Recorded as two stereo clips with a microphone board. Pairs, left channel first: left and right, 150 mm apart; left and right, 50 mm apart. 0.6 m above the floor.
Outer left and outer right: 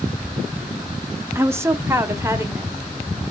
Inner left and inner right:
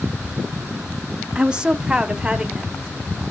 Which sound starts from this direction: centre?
A woman speaking, at 1.4 s.